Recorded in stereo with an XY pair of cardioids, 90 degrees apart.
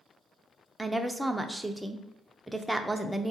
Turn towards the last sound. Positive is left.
turn(degrees=-5)